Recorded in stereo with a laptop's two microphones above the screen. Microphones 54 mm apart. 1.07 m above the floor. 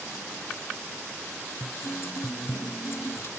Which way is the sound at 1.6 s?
55° left (ahead or behind).